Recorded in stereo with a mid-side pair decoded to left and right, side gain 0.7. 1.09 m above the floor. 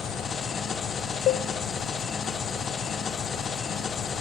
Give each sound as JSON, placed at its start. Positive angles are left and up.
{"t": 0.0, "sound": "an engine running", "azimuth_deg": 35, "distance_m": 0.7}
{"t": 1.3, "sound": "a cowbell", "azimuth_deg": 50, "distance_m": 0.5}